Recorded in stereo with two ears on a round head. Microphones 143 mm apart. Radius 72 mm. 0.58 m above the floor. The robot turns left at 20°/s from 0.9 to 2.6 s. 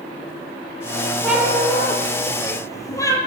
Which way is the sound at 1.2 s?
5° right (ahead or behind).